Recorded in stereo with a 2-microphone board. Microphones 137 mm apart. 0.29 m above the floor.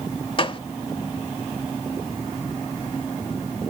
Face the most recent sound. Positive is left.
turn(degrees=40)  # may be behind; listen again after turning